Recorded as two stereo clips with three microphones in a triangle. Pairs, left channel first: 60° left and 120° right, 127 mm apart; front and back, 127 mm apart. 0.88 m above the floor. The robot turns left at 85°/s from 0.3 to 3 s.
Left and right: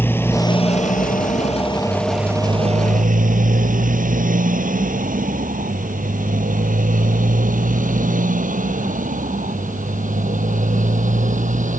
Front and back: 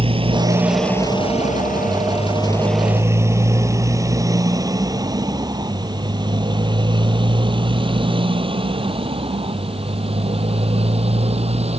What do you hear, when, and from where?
0.0 s a motorcycle: 135° left; by 11.8 s 140° right